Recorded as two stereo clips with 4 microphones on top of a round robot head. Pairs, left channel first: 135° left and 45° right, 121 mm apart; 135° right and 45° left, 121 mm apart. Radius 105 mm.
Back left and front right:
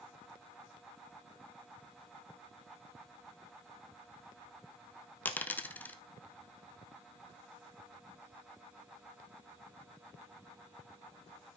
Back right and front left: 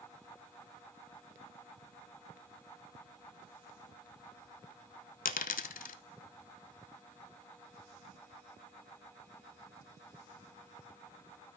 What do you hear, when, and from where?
5.2 s a dropped coin: 145° right, 0.5 m